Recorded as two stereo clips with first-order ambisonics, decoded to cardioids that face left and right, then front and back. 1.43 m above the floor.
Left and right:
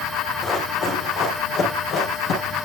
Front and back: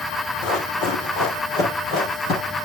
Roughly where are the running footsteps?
Ahead left.